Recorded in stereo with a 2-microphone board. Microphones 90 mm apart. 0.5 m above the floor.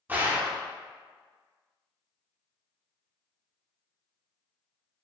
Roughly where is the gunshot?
Right.